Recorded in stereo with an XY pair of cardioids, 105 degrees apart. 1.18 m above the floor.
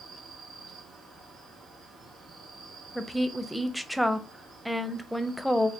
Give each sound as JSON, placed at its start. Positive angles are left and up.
{"t": 0.0, "sound": "an insect", "azimuth_deg": -65, "distance_m": 2.0}
{"t": 3.0, "sound": "a woman speaking", "azimuth_deg": -5, "distance_m": 0.6}